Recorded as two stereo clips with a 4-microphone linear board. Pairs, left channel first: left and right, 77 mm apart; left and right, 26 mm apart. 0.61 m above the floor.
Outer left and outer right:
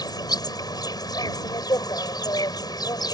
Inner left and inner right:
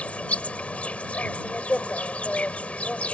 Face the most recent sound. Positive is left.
turn(degrees=60)  # may be behind; listen again after turning